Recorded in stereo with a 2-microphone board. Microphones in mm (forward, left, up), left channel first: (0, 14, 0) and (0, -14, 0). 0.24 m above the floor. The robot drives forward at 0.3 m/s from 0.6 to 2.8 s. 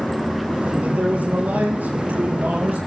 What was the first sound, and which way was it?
A man speaking, 75° right (ahead or behind).